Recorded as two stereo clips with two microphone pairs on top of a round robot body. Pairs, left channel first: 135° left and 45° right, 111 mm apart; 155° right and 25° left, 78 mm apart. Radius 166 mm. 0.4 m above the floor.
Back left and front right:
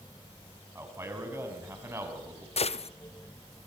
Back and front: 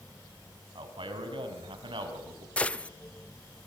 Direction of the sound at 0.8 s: 25° left.